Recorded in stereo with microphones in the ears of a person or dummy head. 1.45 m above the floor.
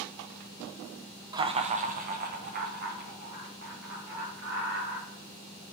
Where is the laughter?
15° right (ahead or behind), 0.5 m; by 5.1 s 55° right (ahead or behind), 3.5 m.